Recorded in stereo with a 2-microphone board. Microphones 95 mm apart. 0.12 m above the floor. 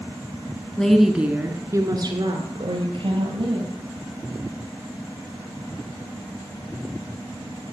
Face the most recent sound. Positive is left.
turn(degrees=-65)  # may be behind; listen again after turning